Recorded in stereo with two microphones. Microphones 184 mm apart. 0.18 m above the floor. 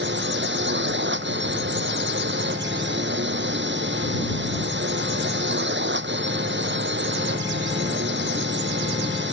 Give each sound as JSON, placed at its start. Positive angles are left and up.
{"t": 0.0, "sound": "a drone", "side_deg": -80}